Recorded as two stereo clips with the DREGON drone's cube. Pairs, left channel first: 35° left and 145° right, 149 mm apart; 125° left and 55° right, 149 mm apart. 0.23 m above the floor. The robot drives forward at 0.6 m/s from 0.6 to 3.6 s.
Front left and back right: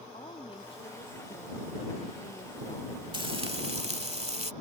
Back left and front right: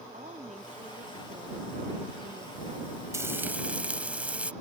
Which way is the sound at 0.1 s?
20° right.